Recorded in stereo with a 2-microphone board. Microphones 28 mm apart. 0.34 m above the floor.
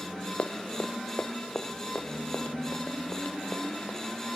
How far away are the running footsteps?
About 0.8 m.